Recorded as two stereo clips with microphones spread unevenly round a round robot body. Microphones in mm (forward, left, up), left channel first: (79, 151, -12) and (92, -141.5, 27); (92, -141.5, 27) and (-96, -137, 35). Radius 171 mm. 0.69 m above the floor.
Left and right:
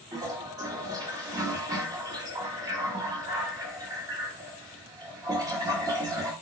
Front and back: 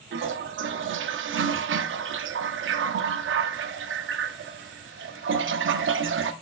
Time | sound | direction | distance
0.1 | a toilet flushing | 170° right | 0.6 m